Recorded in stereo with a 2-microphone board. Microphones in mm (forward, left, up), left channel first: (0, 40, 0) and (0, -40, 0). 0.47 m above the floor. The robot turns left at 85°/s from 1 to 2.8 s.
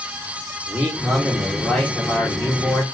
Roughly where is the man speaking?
Centre.